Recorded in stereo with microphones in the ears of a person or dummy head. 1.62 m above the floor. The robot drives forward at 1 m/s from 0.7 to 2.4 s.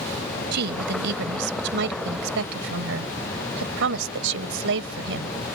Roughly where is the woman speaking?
Right.